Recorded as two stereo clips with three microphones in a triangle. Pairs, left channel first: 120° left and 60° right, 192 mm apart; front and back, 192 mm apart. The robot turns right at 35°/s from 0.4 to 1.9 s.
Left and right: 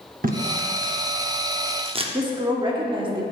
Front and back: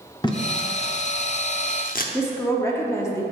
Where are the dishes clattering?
I don't hear dishes clattering.